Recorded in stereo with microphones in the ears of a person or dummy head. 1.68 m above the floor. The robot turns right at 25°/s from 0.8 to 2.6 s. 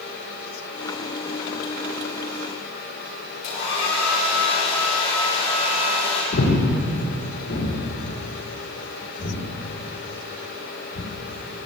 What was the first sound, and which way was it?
A hair dryer, 60° left (ahead or behind).